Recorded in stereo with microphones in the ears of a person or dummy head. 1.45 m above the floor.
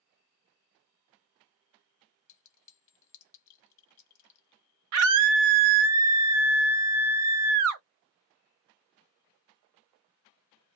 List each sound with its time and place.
2.3 s a clink: 40° left (ahead or behind), 1.3 m
4.9 s a scream: 70° right (ahead or behind), 0.7 m